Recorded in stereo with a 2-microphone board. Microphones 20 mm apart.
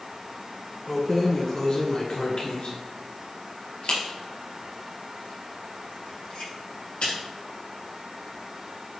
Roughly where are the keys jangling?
Centre.